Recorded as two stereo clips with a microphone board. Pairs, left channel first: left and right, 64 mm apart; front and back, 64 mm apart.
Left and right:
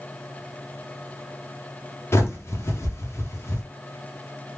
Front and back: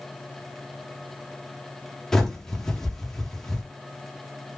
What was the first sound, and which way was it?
A bird, 80° left.